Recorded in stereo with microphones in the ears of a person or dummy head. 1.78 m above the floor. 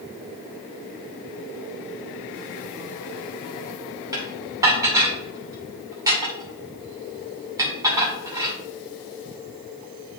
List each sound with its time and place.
4.1 s dishes clattering: 15° right (ahead or behind), 1.8 m